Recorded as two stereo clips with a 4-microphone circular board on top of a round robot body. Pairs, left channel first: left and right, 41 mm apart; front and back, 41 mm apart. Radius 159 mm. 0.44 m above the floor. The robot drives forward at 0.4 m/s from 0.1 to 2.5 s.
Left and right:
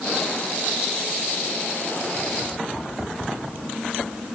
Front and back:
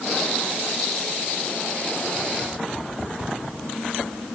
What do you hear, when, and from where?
Only background noise.